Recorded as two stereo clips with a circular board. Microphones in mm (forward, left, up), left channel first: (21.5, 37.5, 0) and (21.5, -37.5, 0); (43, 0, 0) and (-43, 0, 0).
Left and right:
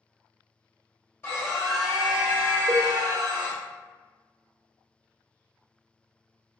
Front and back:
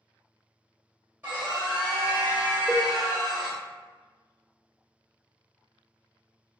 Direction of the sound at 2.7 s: 110° right.